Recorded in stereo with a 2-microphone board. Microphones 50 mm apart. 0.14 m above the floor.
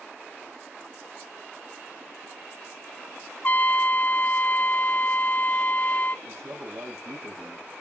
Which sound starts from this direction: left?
A trumpet, at 3.4 s.